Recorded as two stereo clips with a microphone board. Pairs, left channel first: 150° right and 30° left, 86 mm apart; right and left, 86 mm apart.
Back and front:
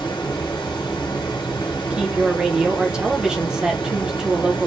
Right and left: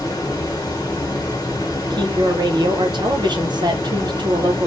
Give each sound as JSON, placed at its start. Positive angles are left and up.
{"t": 0.0, "sound": "running water", "azimuth_deg": -130, "distance_m": 1.0}
{"t": 1.9, "sound": "a woman speaking", "azimuth_deg": 110, "distance_m": 0.9}